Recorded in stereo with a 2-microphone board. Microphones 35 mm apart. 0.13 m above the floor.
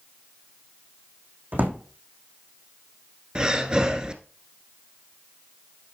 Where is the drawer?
60° right (ahead or behind), 3 m.